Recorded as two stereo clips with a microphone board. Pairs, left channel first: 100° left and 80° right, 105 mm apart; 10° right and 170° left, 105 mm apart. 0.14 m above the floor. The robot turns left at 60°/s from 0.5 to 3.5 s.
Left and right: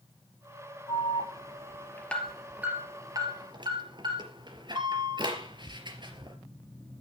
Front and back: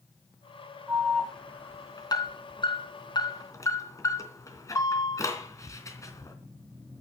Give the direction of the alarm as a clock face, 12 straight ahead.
9 o'clock.